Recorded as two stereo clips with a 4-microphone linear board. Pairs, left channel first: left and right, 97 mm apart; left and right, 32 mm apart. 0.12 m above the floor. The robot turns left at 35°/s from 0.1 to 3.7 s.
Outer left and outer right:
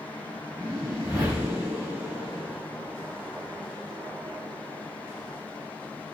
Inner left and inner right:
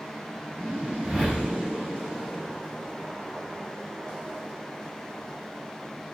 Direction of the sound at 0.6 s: 90° right.